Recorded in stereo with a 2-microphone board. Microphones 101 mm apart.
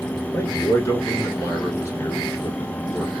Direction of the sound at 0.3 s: 30° left (ahead or behind).